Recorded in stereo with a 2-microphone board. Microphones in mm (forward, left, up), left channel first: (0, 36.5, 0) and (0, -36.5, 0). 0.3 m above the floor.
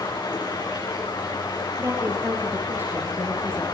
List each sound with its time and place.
0.0 s running water: 75° left (ahead or behind), 9.5 m
1.8 s a woman speaking: 35° right (ahead or behind), 5.5 m